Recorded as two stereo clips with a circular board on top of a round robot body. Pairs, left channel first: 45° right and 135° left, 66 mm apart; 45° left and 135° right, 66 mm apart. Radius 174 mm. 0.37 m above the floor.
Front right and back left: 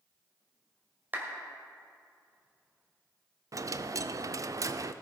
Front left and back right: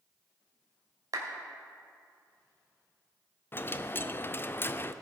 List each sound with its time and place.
1.1 s a clap: 160° right, 2 m
3.5 s a dropped coin: 100° left, 0.5 m